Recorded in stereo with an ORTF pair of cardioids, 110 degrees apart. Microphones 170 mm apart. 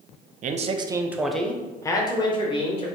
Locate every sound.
0.4 s a man speaking: 50° right, 0.6 m; by 2.9 s 35° left, 1.3 m